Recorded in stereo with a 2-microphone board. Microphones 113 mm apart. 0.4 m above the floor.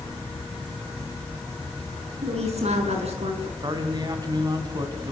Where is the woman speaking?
70° right (ahead or behind), 5.5 m.